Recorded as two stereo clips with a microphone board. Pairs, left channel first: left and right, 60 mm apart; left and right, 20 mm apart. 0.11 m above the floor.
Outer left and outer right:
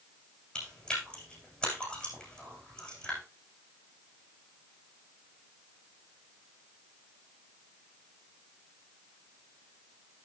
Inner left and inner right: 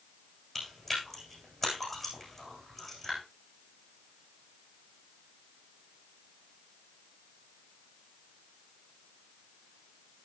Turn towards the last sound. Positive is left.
turn(degrees=15)  # may be behind; listen again after turning